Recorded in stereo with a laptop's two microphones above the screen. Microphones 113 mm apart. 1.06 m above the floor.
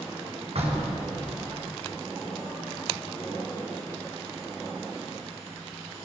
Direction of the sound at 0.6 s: 70° right (ahead or behind).